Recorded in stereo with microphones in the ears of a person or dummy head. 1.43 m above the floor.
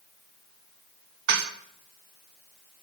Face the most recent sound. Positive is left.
turn(degrees=-60)  # may be behind; listen again after turning